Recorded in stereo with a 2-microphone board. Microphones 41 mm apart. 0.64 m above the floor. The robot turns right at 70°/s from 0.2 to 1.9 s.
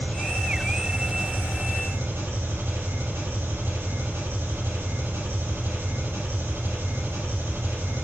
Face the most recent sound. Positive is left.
turn(degrees=-90)